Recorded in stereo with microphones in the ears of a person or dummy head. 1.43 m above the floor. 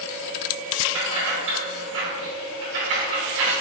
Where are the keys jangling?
65° right (ahead or behind), 1.6 m.